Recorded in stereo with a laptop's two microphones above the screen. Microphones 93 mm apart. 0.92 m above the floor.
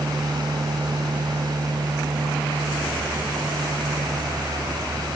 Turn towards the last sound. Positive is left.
turn(degrees=-50)  # may be behind; listen again after turning